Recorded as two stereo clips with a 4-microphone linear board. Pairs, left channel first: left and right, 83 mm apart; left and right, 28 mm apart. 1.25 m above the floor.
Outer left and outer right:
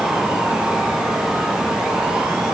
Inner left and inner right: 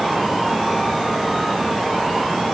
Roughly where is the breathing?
No breathing in this recording.